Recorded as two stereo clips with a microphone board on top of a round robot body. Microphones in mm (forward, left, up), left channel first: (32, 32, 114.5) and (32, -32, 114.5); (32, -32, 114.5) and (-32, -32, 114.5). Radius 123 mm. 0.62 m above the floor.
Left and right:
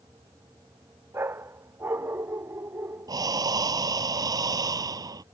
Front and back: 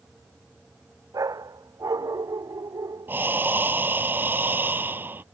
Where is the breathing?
120° right.